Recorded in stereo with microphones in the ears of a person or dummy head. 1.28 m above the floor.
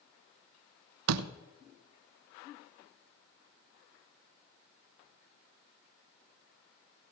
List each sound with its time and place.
1.1 s a door slam: 80° right, 0.5 m